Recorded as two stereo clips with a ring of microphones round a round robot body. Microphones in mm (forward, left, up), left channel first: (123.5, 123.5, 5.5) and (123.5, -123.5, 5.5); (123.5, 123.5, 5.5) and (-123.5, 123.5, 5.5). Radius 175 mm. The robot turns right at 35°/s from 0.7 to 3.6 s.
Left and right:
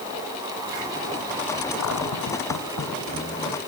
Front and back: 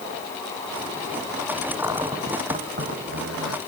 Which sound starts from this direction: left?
A cupboard door, at 1.8 s.